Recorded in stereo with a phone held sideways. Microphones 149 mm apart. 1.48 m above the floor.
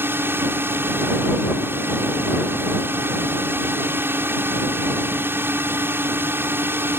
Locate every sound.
0.0 s a drone: 15° right (ahead or behind)